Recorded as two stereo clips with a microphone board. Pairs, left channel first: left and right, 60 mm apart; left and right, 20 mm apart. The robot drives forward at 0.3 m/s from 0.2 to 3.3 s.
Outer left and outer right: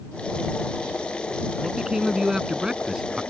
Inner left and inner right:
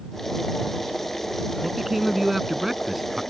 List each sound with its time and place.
1.6 s a man speaking: 10° right (ahead or behind)